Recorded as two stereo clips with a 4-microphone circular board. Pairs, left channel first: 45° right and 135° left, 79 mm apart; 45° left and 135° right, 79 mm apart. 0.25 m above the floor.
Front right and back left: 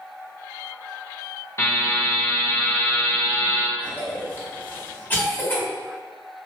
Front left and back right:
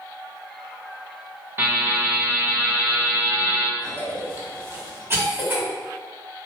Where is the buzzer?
85° right, 1.9 m.